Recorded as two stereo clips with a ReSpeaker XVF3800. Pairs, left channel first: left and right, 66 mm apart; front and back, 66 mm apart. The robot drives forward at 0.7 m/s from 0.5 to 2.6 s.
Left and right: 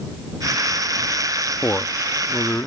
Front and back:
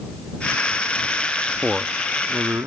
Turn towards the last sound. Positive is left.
turn(degrees=145)